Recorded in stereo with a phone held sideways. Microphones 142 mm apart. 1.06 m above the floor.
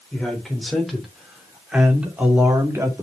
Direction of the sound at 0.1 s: 5° left (ahead or behind).